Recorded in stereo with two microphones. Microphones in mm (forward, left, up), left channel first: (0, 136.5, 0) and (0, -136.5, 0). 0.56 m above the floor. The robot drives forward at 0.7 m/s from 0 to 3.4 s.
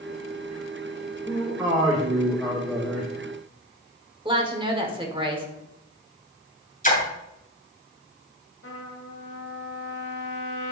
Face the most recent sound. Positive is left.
turn(degrees=60)  # may be behind; listen again after turning